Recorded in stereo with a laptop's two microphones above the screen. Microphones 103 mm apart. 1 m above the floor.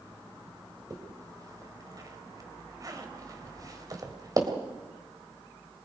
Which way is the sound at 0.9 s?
35° right (ahead or behind).